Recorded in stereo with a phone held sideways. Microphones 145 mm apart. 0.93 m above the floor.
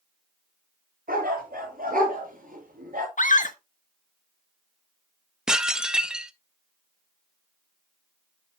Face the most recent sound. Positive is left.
turn(degrees=-5)  # may be behind; listen again after turning